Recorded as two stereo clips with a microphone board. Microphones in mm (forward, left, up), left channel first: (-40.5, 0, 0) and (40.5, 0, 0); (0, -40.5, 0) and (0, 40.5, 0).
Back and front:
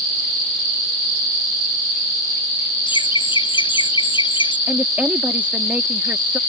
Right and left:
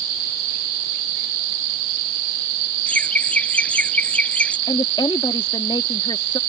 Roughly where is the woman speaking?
Right.